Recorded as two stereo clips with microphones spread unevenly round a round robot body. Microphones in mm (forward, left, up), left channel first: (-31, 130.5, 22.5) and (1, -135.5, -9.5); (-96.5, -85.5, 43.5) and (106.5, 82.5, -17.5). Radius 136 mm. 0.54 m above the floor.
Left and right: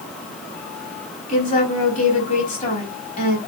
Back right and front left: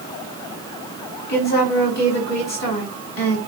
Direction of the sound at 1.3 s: 160° left.